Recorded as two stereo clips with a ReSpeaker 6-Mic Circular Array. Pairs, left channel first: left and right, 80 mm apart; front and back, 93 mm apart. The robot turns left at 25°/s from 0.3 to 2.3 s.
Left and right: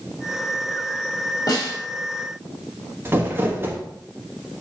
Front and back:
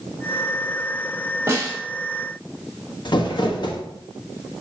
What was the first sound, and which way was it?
A snare drum, 120° left.